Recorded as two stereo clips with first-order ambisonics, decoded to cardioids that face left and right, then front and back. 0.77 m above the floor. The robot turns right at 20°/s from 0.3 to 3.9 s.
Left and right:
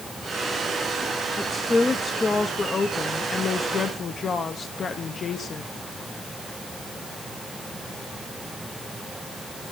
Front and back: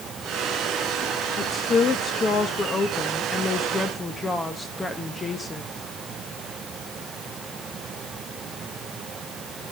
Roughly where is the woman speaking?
Ahead.